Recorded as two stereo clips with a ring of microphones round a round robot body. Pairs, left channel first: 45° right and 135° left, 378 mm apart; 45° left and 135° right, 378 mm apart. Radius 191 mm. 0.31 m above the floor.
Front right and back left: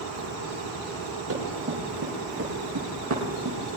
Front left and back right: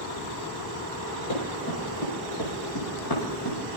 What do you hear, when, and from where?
1.3 s running footsteps: 80° left, 9 m; by 3.6 s 85° left, 6 m